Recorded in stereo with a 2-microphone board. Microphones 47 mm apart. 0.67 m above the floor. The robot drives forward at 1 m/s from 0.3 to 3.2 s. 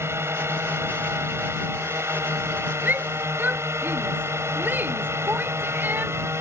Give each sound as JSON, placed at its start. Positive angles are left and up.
{"t": 0.0, "sound": "a drone", "side_deg": -65}
{"t": 2.9, "sound": "a shout", "side_deg": -45}